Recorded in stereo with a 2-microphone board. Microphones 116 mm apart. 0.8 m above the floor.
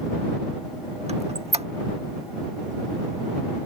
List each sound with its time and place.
1.1 s a squeak: 65° right (ahead or behind)